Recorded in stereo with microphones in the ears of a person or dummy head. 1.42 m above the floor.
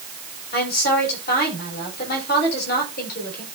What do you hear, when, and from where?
0.5 s a woman speaking: 55° left (ahead or behind), 7.5 m